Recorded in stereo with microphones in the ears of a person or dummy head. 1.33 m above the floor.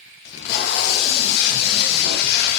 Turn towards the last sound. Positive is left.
turn(degrees=60)  # may be behind; listen again after turning